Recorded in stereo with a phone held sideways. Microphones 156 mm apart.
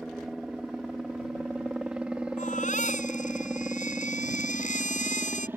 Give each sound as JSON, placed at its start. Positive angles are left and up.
{"t": 0.0, "sound": "a helicopter", "side_deg": 0}
{"t": 2.4, "sound": "a baby crying", "side_deg": 55}